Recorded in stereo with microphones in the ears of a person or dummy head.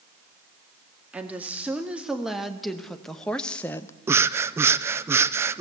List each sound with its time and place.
1.1 s a woman speaking: 10° right (ahead or behind), 2.5 m; by 3.9 s 10° left (ahead or behind), 0.9 m
4.1 s breathing: 10° right (ahead or behind), 0.5 m